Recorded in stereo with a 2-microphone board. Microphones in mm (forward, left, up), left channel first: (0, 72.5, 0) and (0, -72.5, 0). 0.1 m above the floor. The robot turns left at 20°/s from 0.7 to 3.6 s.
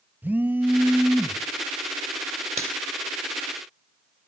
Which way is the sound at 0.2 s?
10° right (ahead or behind).